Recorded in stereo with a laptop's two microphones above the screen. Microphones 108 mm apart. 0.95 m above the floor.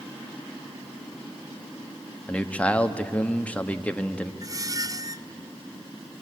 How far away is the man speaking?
About 1.4 m.